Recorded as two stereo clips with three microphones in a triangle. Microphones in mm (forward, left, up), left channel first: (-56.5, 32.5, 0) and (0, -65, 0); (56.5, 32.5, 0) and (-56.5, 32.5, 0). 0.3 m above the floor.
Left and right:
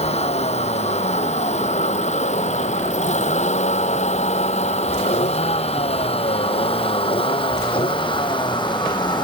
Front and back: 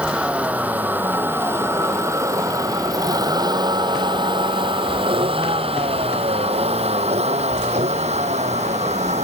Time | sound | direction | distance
0.0 | a vehicle | 100° left | ?